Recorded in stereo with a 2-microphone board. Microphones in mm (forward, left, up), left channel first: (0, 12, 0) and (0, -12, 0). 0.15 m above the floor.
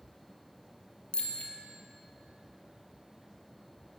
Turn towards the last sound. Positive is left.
turn(degrees=50)  # may be behind; listen again after turning